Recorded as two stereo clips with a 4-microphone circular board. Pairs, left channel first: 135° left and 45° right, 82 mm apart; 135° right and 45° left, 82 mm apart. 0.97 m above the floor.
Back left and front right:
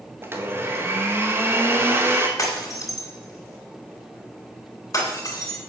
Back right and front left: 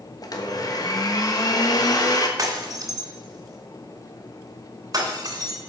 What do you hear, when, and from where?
0.2 s a blender: 105° right, 1.4 m
2.4 s breaking glass: 85° left, 3 m